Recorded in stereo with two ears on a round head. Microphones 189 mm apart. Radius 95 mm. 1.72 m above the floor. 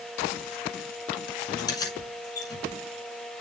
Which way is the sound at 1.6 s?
20° left (ahead or behind).